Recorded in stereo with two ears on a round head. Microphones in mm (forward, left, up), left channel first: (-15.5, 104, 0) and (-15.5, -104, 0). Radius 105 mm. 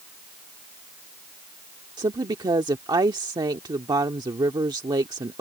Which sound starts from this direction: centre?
A woman speaking, at 2.0 s.